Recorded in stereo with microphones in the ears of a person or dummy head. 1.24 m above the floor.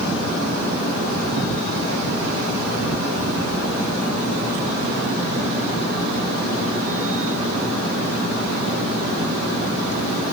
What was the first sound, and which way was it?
Only background noise.